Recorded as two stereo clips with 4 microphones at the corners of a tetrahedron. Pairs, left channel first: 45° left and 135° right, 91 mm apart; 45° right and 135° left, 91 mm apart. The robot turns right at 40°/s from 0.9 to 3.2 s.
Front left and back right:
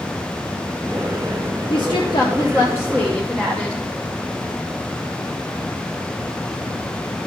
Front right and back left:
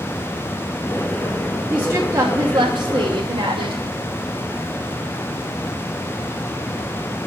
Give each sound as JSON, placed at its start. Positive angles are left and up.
{"t": 1.7, "sound": "a woman speaking", "azimuth_deg": 65, "distance_m": 0.9}